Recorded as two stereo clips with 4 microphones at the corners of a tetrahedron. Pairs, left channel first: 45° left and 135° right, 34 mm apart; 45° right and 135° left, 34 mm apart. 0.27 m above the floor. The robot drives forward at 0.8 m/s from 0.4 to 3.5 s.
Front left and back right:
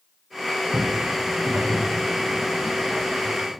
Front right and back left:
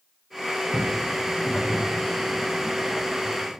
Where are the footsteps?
90° right, 1.2 m; by 3.6 s 160° left, 2.5 m.